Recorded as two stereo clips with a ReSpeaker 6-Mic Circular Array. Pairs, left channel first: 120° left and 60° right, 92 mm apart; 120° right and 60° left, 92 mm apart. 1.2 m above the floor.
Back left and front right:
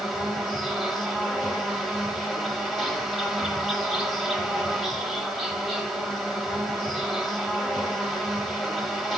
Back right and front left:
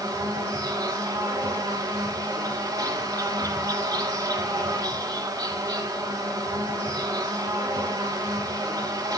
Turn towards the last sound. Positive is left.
turn(degrees=30)